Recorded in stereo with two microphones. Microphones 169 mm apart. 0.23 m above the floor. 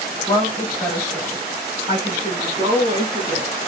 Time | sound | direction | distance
0.3 | a woman speaking | 25° left (ahead or behind) | 1.3 m